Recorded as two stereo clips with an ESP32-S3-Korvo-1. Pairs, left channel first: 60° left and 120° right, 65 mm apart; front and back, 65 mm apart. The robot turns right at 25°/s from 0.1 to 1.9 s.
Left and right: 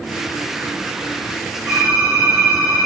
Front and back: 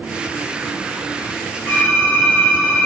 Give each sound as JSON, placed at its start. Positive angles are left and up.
{"t": 1.7, "sound": "typing on a keyboard", "azimuth_deg": -45, "distance_m": 1.2}